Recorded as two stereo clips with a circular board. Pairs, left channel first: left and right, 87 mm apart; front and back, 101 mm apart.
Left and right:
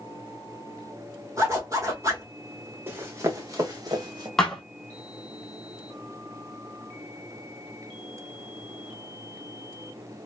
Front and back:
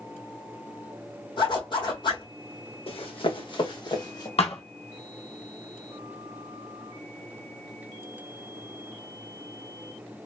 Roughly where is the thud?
Ahead.